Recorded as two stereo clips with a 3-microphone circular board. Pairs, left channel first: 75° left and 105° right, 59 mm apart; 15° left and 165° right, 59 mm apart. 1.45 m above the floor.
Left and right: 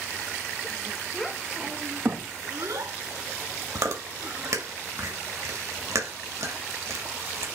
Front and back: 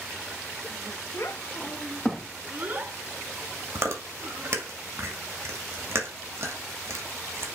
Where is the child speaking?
10° right, 1.4 m; by 4.6 s 130° right, 3.5 m.